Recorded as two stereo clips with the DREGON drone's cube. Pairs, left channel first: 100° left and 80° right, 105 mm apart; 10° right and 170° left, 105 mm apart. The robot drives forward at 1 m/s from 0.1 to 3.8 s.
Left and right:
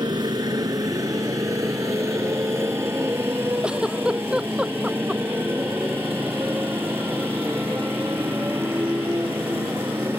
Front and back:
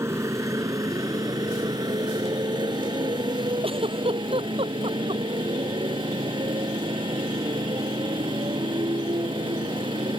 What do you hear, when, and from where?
0.0 s a motorcycle: 125° right; by 10.2 s 150° right
3.6 s a giggle: 160° right